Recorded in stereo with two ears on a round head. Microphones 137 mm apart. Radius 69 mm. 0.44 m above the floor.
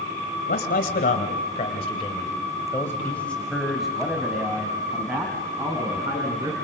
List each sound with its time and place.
0.5 s a man speaking: 65° left (ahead or behind), 2.5 m; by 6.5 s 20° right (ahead or behind), 4.5 m